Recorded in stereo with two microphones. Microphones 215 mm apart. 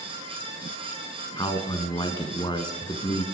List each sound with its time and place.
1.4 s a man speaking: 20° left (ahead or behind), 1.3 m